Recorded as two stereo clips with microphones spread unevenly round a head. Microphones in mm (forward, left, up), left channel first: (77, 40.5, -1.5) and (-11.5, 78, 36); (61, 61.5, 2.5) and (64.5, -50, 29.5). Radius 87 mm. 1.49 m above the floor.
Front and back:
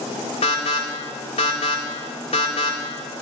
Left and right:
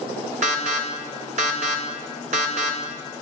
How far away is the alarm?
About 1.7 m.